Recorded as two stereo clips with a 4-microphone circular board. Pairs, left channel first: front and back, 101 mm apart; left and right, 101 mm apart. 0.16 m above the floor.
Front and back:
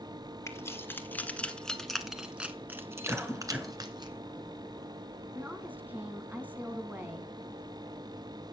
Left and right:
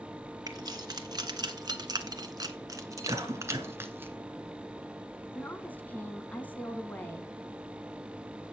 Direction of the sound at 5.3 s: 130° left.